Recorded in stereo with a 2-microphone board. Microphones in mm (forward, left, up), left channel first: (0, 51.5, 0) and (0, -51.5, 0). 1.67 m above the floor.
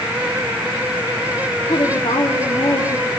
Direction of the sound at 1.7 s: 75° left (ahead or behind).